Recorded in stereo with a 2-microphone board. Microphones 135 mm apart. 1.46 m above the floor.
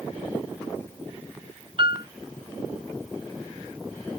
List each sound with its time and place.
1.8 s a piano: 40° right (ahead or behind)